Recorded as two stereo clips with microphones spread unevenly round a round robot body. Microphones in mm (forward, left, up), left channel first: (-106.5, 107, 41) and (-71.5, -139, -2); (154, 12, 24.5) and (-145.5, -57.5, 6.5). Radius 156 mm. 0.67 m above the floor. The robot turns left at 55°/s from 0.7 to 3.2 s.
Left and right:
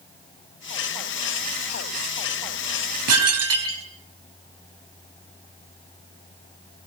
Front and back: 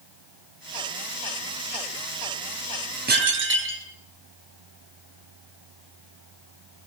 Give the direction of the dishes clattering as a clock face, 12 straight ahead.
3 o'clock.